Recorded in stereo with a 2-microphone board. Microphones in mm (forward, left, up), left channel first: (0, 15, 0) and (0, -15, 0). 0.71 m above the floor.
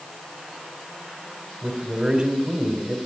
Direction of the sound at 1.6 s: 35° right (ahead or behind).